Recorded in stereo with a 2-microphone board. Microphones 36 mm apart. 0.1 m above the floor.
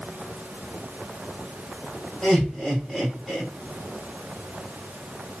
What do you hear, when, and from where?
2.2 s laughter: 5° right (ahead or behind), 2 m